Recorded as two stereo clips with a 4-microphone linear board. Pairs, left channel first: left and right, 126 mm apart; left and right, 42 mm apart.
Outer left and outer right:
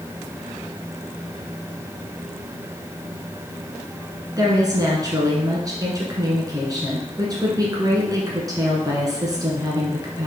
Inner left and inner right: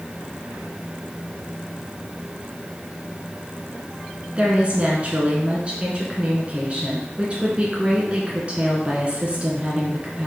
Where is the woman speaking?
30° right (ahead or behind), 1.3 m.